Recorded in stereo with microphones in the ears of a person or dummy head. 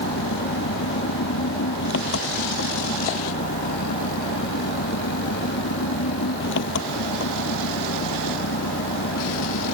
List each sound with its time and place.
0.0 s an engine running: 75° left (ahead or behind)